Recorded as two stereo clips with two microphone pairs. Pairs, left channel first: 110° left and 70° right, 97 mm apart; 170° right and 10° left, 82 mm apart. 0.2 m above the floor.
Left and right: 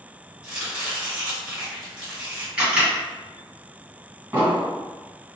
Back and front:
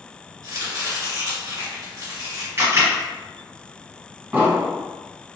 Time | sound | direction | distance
0.4 | chopping | 5° left | 1.9 m
2.6 | a camera shutter | 5° right | 1.5 m
4.3 | an explosion | 25° right | 1.6 m